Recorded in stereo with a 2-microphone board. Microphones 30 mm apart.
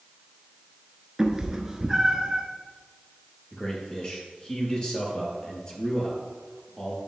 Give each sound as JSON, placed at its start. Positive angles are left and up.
{"t": 1.2, "sound": "a cat meowing", "side_deg": -15, "distance_m": 1.0}
{"t": 3.5, "sound": "a man speaking", "side_deg": 30, "distance_m": 3.0}